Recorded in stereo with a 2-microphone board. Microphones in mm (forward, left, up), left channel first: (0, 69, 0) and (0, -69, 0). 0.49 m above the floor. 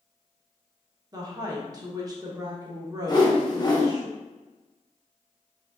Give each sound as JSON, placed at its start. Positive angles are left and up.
{"t": 1.1, "sound": "a woman speaking", "side_deg": -30, "distance_m": 0.8}
{"t": 3.1, "sound": "a whoosh", "side_deg": 30, "distance_m": 1.0}